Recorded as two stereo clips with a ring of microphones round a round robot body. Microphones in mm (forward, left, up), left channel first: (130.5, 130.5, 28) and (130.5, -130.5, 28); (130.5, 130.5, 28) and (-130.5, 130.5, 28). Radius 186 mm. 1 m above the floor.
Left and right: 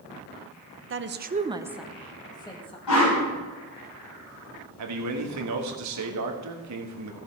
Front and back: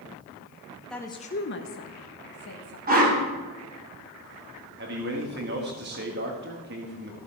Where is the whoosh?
125° left, 4 m.